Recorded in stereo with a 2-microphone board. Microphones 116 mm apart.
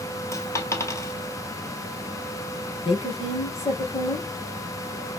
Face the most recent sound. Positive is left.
turn(degrees=55)  # may be behind; listen again after turning